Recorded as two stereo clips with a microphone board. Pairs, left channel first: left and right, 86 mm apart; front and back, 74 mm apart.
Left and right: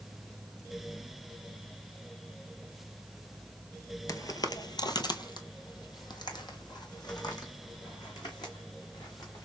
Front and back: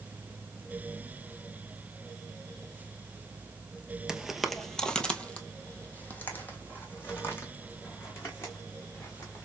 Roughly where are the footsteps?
Left.